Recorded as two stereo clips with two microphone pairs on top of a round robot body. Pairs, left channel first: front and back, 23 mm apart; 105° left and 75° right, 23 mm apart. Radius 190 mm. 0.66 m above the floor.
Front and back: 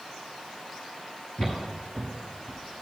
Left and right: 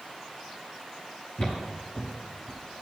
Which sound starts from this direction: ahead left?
Footsteps, at 1.4 s.